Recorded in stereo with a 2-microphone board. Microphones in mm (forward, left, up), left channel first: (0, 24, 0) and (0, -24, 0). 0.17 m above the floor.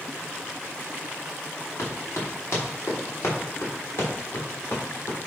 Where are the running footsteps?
65° left (ahead or behind), 5 m; by 5.2 s 60° left (ahead or behind), 7 m.